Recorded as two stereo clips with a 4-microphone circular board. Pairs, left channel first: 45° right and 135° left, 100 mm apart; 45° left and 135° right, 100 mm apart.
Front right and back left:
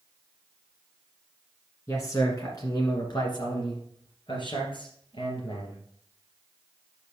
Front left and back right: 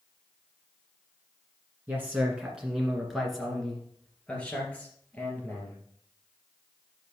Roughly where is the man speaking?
Right.